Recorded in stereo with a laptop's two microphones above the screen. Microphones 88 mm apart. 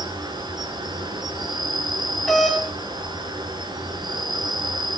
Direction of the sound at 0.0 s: 55° right (ahead or behind).